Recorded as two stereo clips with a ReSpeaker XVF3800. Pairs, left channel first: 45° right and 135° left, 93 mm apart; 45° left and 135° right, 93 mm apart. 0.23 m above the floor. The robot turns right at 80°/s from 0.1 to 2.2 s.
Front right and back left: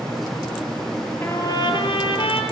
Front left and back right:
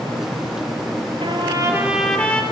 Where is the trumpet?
110° right, 4.5 m; by 2.4 s 30° right, 4.5 m.